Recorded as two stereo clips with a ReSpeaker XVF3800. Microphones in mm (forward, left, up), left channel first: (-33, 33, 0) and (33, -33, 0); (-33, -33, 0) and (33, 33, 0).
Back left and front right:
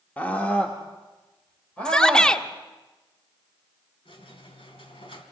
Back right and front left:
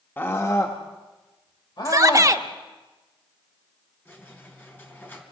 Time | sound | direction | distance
0.2 | a scream | 170° right | 1.2 m
1.9 | a shout | 60° left | 0.8 m
4.0 | a squeak | 155° left | 3 m